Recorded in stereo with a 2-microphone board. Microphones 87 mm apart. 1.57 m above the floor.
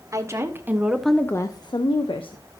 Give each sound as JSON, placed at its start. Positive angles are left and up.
{"t": 0.1, "sound": "a woman speaking", "side_deg": -35, "distance_m": 1.3}